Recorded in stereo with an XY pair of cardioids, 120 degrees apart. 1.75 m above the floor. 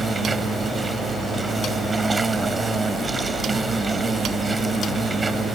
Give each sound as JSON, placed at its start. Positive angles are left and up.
{"t": 0.0, "sound": "an insect", "azimuth_deg": -20}